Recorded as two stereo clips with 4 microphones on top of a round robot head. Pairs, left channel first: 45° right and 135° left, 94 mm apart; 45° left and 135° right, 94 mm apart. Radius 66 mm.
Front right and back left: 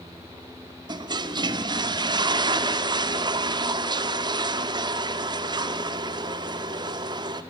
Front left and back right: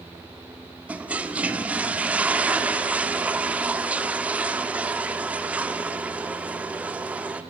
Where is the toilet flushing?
155° left, 1.2 m.